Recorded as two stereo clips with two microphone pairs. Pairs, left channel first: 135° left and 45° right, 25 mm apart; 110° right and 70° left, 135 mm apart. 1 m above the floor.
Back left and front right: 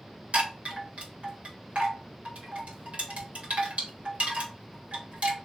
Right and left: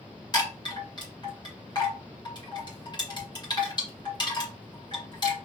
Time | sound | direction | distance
0.3 | a chime | 60° right | 2 m